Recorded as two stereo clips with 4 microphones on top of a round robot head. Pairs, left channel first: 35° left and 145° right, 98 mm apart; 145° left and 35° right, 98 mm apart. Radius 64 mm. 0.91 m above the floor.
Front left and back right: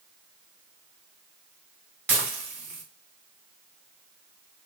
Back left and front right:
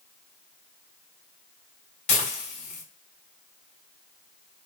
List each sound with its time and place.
2.1 s dishes clattering: 145° left, 1.9 m